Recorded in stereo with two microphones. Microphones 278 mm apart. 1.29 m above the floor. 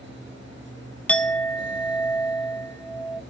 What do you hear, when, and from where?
1.1 s a clink: 5° left (ahead or behind), 0.7 m